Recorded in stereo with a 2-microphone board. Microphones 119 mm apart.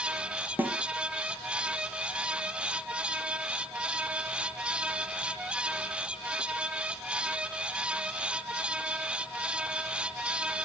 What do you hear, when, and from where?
0.6 s a snare drum: 15° right (ahead or behind), 1.1 m